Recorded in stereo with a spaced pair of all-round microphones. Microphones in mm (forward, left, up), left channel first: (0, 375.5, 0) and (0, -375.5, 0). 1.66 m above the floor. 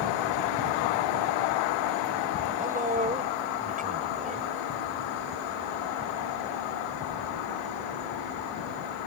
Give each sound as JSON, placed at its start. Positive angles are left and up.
{"t": 2.6, "sound": "a man speaking", "side_deg": -10}